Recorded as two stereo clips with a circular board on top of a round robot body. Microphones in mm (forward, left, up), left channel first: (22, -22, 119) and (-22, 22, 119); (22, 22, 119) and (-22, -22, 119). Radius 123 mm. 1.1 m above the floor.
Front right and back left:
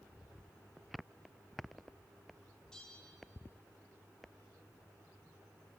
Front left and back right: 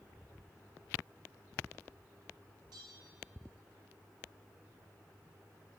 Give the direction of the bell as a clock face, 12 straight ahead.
4 o'clock.